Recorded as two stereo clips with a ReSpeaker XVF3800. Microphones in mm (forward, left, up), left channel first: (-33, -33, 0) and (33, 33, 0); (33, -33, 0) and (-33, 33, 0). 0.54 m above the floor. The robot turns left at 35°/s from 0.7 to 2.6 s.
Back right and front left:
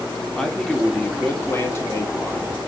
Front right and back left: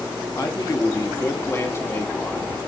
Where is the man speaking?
55° right, 1.1 m; by 2.6 s 120° right, 1.1 m.